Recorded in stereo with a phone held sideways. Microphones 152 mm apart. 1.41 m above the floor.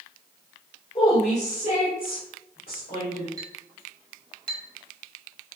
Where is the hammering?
I don't hear hammering.